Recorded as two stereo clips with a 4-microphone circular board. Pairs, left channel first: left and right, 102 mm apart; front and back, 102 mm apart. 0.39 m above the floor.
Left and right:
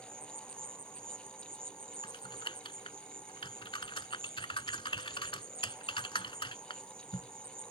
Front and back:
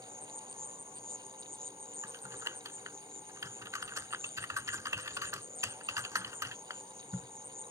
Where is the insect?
115° right.